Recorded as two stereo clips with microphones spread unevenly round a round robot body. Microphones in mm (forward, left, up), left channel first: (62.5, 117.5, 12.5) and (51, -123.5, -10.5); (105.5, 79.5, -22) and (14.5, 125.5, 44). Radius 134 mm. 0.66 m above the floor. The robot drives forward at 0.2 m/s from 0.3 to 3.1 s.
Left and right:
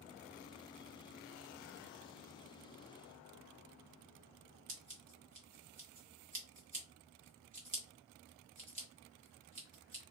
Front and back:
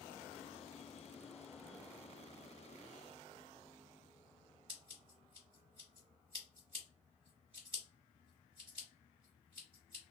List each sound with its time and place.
4.7 s scissors: 130° right, 1.2 m